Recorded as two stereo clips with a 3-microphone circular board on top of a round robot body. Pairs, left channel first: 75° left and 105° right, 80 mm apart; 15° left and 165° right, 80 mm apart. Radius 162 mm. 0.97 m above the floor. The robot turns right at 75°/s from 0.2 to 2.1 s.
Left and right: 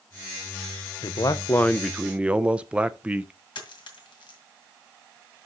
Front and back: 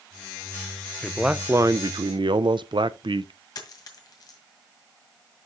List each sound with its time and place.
1.0 s a man speaking: 100° left, 0.6 m; by 3.3 s straight behind, 0.6 m
3.5 s a dropped coin: 55° left, 2 m